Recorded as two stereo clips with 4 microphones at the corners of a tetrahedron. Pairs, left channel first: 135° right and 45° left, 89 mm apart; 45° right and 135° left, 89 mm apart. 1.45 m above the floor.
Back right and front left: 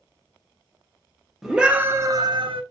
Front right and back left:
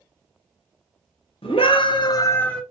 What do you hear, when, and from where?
1.4 s a scream: 40° right, 0.8 m; by 2.6 s 40° left, 0.5 m